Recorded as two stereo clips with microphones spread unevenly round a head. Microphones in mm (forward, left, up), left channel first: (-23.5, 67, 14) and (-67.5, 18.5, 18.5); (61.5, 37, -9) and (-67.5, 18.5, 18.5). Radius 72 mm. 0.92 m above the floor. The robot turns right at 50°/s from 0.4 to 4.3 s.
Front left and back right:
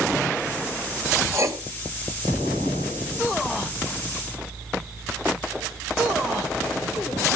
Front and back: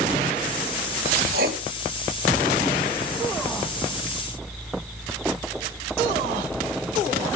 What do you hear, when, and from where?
1.3 s writing: 175° right, 3.5 m; by 1.6 s 160° right, 3.5 m